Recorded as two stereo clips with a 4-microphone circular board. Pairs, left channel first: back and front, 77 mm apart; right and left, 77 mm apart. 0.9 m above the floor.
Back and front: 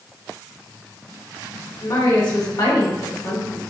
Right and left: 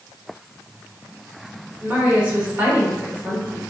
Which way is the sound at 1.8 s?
160° left.